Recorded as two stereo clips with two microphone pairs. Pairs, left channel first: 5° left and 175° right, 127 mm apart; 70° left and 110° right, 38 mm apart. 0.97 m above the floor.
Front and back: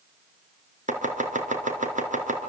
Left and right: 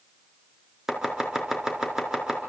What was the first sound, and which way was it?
Chopping, 175° left.